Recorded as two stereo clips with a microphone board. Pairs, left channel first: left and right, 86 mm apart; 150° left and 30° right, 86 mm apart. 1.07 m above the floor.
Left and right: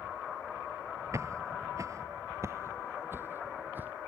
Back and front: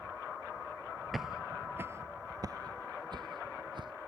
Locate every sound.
1.1 s footsteps: 120° right; by 3.9 s 25° right